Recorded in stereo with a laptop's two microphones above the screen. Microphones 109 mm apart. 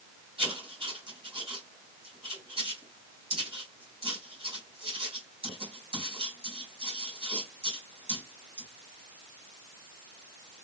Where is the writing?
55° right (ahead or behind), 2 m.